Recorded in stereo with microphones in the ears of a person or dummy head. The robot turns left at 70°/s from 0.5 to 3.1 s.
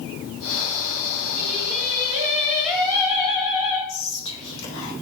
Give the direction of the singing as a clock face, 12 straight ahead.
3 o'clock.